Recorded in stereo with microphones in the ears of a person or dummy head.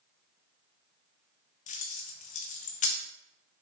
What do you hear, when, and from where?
1.7 s keys jangling: 50° left (ahead or behind), 0.6 m